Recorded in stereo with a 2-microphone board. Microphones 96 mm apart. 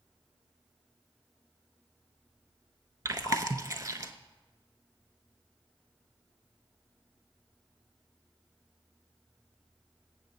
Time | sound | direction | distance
3.0 | chewing | 35° right (ahead or behind) | 0.5 m